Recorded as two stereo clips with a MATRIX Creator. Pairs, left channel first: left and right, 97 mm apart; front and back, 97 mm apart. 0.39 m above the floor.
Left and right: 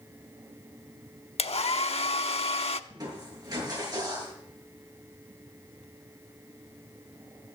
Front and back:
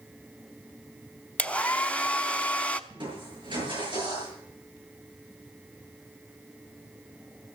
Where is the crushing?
140° right, 7 m.